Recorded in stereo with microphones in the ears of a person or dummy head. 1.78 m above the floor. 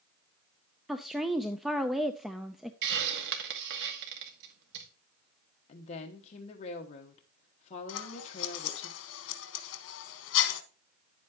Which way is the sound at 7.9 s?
70° left (ahead or behind).